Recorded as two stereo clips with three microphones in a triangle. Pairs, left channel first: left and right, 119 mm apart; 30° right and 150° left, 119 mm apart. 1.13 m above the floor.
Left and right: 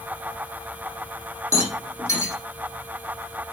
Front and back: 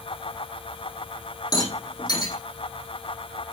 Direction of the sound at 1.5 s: 25° left.